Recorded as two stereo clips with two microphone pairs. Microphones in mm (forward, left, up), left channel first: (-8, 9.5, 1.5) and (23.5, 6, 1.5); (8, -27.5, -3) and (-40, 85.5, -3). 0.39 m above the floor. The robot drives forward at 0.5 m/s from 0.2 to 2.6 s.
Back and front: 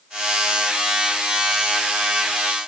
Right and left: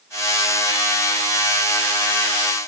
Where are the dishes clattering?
I don't hear dishes clattering.